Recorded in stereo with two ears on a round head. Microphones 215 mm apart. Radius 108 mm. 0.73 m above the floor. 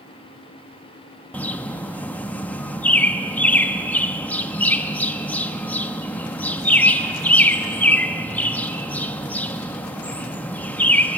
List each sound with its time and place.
1.3 s a bird: 5° left (ahead or behind), 0.7 m